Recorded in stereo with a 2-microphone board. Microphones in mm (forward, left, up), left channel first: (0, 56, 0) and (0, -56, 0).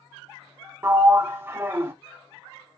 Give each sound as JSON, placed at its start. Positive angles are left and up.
{"t": 0.8, "sound": "a sliding door", "side_deg": -20, "distance_m": 0.5}